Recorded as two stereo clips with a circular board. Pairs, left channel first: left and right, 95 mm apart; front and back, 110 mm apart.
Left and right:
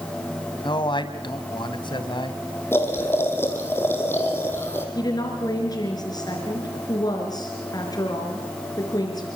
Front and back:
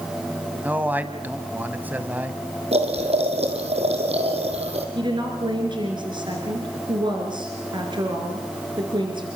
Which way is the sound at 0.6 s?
110° left.